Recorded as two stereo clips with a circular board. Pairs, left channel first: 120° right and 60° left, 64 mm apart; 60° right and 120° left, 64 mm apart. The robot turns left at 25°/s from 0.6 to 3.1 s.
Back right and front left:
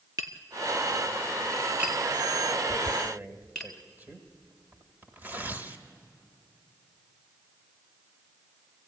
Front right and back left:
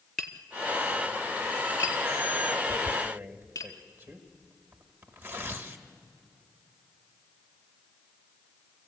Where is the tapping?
25° left, 1.4 m; by 3.7 s 40° right, 1.4 m.